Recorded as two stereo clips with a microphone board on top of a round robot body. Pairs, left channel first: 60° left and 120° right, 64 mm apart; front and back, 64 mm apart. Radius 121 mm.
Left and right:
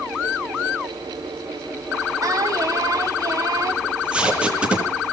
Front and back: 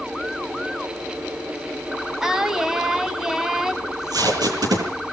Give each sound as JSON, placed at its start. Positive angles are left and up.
{"t": 2.2, "sound": "singing", "azimuth_deg": -100, "distance_m": 3.5}
{"t": 3.8, "sound": "tape being pulled", "azimuth_deg": 165, "distance_m": 10.0}